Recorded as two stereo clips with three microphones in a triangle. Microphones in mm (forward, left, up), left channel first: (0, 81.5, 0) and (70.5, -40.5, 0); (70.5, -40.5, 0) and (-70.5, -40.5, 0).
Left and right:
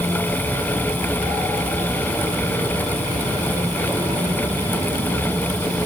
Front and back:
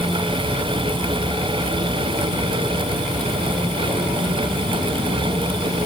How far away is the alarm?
No alarm in this recording.